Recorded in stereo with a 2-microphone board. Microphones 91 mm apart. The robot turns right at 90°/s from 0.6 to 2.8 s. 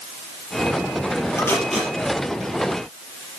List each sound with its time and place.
1.4 s tape being pulled: 35° left (ahead or behind), 5 m; by 1.9 s 15° right (ahead or behind), 5 m